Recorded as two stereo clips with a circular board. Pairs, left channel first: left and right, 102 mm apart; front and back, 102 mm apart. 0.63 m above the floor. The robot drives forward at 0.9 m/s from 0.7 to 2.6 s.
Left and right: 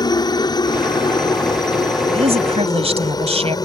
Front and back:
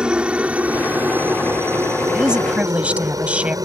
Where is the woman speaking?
95° right; by 3.6 s 100° right.